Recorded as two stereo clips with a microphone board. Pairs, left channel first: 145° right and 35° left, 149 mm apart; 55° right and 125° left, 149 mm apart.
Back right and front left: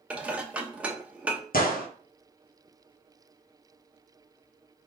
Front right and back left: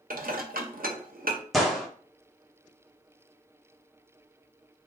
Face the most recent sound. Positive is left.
turn(degrees=-145)